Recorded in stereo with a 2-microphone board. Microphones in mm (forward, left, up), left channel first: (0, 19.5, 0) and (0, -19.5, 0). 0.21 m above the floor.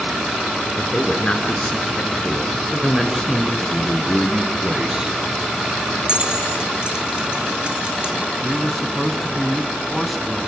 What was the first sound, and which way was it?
A man speaking, 35° left (ahead or behind).